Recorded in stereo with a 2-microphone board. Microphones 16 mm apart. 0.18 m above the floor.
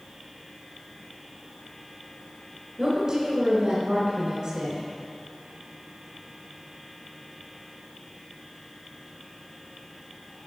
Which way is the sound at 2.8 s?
50° right (ahead or behind).